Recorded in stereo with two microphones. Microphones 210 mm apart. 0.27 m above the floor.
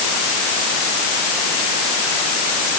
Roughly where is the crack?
I don't hear a crack.